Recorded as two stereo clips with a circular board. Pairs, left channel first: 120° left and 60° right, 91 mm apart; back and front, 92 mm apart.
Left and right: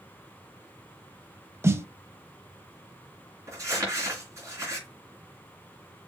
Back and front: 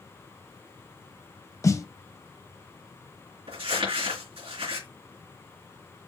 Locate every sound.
1.6 s a snare drum: 120° right, 0.6 m
3.5 s crumpling: straight ahead, 3.5 m